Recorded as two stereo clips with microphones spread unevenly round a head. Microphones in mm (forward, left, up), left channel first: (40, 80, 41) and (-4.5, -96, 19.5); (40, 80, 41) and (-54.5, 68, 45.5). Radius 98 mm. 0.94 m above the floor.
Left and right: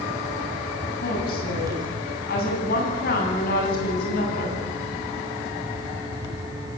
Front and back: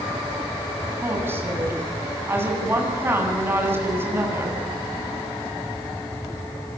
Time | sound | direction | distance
1.0 | a woman speaking | 120° left | 8.5 m